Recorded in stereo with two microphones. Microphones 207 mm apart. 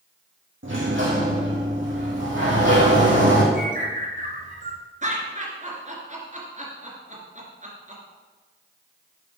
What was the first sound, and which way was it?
A sliding door, 70° right (ahead or behind).